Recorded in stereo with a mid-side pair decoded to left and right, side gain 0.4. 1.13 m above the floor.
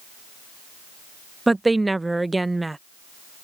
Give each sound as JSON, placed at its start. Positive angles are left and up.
{"t": 1.5, "sound": "a woman speaking", "azimuth_deg": -15}